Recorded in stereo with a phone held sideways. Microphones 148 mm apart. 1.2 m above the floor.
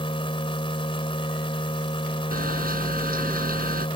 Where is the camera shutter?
75° right (ahead or behind).